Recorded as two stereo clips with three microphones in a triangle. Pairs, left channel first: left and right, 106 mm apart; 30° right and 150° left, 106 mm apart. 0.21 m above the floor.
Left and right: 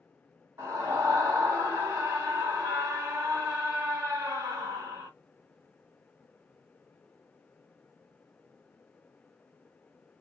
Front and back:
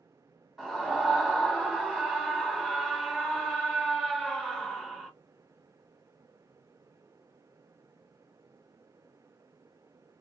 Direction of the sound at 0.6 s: 120° right.